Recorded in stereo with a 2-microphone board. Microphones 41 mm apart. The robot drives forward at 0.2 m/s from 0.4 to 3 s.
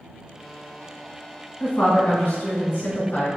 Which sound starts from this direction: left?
A woman speaking, at 1.6 s.